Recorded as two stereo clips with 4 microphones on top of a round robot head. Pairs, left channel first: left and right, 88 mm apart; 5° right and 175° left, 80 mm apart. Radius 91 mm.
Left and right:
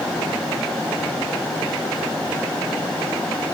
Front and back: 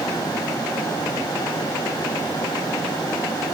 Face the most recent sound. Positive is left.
No sound to turn to.